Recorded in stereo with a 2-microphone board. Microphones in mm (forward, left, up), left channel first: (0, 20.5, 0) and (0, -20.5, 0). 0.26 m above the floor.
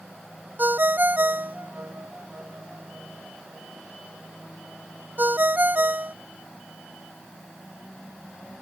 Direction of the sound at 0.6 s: 50° right (ahead or behind).